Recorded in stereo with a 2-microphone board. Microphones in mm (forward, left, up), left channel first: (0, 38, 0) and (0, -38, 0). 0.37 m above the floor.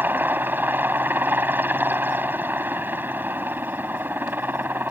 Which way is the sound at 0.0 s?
25° right (ahead or behind).